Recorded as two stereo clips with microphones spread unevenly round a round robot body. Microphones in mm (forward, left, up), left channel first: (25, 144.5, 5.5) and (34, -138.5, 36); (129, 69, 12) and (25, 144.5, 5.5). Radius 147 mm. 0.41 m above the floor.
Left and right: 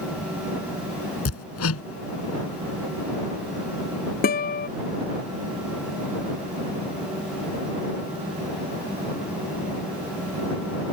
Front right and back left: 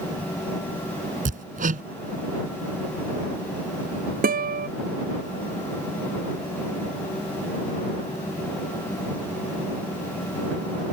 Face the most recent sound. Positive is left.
turn(degrees=155)